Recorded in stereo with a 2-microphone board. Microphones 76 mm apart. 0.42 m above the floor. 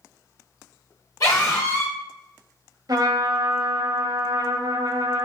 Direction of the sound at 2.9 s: 55° right (ahead or behind).